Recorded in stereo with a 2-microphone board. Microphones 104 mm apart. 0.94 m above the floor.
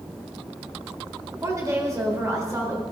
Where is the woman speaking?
30° right (ahead or behind), 4.5 m.